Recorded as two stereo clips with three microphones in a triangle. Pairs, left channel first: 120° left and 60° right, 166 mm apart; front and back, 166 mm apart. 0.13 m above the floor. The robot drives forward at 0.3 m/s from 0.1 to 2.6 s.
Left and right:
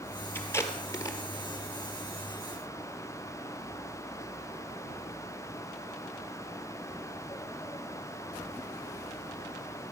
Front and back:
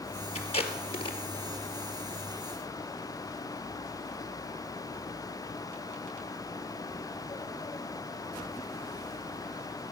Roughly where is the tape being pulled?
Ahead left.